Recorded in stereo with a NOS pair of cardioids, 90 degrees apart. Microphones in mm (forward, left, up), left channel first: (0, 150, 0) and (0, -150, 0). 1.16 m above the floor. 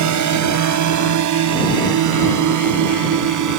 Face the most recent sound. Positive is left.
turn(degrees=-75)